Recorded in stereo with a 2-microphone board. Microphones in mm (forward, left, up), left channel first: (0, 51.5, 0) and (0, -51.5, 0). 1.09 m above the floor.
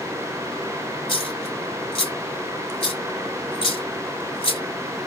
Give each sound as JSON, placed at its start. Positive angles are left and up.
{"t": 1.1, "sound": "a dropped coin", "side_deg": 65, "distance_m": 2.5}